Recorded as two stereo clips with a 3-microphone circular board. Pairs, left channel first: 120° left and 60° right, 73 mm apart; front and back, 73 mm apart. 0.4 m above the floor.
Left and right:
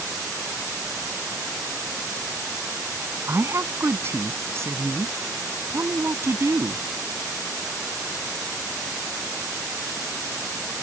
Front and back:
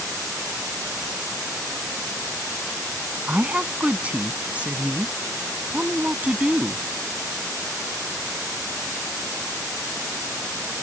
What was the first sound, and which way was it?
A woman speaking, 110° right.